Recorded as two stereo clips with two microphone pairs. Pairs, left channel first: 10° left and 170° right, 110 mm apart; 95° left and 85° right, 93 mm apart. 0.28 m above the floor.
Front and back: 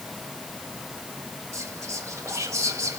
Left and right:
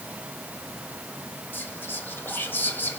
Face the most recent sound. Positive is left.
turn(degrees=145)